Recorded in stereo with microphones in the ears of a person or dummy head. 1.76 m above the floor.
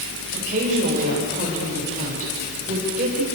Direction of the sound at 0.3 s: 45° right (ahead or behind).